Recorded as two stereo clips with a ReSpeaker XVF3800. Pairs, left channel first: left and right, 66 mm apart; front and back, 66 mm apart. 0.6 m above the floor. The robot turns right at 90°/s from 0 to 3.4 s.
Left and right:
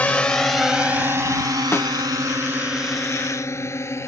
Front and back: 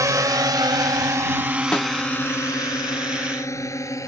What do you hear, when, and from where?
0.0 s a drone: 155° left; by 4.1 s 40° left
1.7 s a snare drum: 60° left; by 1.9 s 80° left